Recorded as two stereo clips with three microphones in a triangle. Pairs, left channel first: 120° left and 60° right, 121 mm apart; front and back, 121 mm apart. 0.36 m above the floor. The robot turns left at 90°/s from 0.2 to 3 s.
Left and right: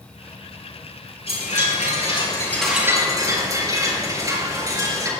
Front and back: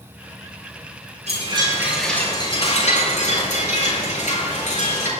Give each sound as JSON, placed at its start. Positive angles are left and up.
{"t": 1.3, "sound": "a chime", "azimuth_deg": 155, "distance_m": 5.5}